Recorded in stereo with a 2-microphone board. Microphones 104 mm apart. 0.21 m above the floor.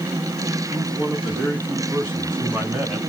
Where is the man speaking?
15° right (ahead or behind), 2.5 m; by 3.0 s 20° right (ahead or behind), 1.7 m.